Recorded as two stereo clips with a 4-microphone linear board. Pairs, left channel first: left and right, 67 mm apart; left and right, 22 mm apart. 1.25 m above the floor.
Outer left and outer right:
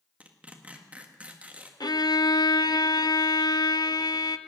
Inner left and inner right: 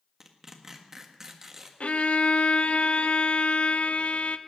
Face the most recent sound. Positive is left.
turn(degrees=80)